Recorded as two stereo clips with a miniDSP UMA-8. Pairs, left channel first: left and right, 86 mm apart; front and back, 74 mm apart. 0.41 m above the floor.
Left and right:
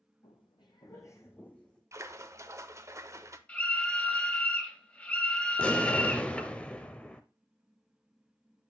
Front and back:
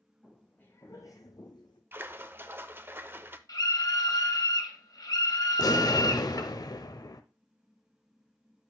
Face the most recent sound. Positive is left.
turn(degrees=15)